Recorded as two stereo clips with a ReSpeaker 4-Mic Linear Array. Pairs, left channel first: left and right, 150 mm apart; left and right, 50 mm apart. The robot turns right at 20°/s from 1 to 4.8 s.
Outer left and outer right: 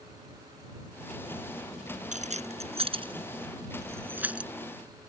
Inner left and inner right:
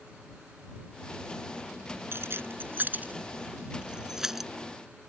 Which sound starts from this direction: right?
Keys jangling, at 2.1 s.